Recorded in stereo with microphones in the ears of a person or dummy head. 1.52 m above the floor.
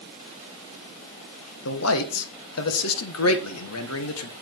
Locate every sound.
1.6 s a man speaking: 85° left, 1.5 m